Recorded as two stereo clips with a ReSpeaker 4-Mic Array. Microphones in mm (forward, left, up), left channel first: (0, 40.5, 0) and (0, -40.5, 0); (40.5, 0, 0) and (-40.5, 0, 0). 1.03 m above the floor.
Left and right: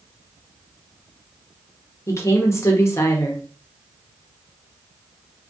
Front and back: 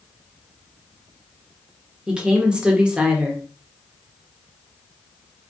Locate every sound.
2.1 s a woman speaking: 110° left, 0.7 m